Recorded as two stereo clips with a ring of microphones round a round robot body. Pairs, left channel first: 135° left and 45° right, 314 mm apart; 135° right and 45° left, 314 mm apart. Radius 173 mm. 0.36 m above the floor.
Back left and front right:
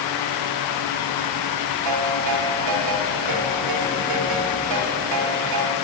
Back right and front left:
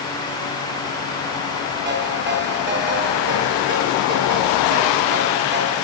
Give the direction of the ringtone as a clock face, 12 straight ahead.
12 o'clock.